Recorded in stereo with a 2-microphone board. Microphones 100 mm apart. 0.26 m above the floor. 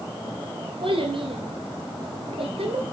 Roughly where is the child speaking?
Right.